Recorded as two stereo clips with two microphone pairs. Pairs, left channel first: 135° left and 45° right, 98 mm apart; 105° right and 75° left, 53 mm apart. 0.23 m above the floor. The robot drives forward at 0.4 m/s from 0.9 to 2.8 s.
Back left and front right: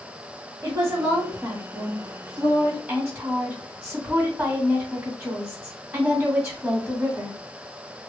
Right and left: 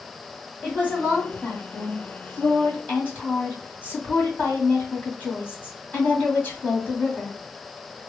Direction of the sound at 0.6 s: 65° right.